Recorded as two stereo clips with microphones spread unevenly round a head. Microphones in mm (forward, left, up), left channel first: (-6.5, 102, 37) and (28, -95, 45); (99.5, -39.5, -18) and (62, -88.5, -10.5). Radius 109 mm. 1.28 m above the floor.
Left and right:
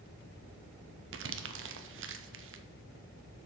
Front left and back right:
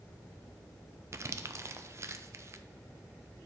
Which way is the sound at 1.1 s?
85° right.